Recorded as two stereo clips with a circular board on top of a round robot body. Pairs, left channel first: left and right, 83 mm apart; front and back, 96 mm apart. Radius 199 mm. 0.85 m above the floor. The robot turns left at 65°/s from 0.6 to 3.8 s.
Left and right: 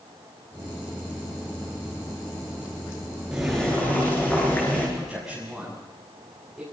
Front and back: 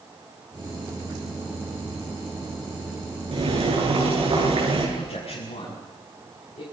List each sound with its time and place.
3.3 s boiling: 170° right, 8 m; by 4.9 s 155° left, 8 m
5.0 s a man speaking: 5° right, 7 m